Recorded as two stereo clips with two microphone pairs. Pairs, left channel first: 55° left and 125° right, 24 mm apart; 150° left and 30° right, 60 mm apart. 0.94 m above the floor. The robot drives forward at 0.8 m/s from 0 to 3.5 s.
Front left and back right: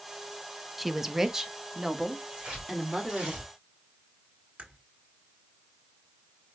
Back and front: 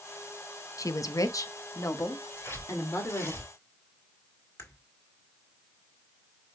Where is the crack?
165° right, 1.5 m.